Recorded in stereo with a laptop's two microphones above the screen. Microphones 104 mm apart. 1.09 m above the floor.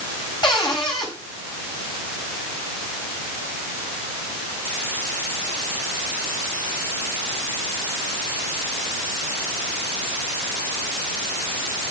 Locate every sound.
0.4 s a cupboard door: 45° left (ahead or behind), 6 m